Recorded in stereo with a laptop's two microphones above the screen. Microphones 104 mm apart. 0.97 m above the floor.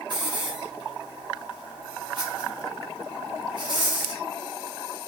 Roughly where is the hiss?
Right.